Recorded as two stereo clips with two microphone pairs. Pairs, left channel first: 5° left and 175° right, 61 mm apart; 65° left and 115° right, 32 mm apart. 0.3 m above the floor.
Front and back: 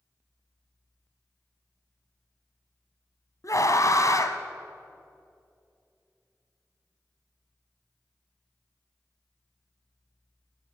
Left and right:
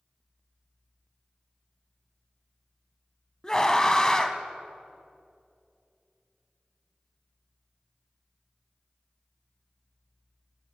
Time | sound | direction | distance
3.4 | a scream | straight ahead | 2 m